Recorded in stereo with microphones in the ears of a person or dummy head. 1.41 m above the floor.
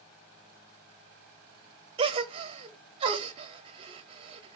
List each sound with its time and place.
2.0 s a gasp: 30° right (ahead or behind), 0.6 m